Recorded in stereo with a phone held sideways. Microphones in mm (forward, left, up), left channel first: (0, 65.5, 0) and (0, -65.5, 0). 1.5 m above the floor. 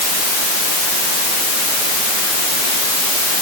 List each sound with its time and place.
Only background noise.